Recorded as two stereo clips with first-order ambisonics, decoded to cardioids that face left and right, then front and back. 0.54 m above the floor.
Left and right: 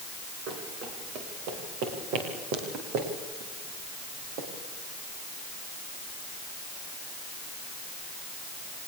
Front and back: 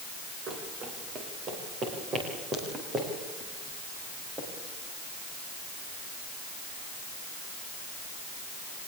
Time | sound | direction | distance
0.5 | running footsteps | 130° right | 6.5 m